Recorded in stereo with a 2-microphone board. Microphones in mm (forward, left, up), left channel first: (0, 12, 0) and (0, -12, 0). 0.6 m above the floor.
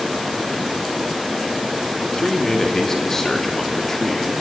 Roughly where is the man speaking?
Left.